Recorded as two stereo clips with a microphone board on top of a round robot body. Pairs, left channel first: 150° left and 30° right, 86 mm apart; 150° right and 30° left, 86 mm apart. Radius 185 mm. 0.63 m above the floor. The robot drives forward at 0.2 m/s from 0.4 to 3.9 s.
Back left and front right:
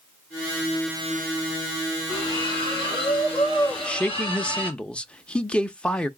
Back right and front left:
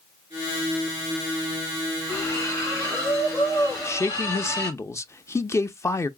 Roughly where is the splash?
Behind left.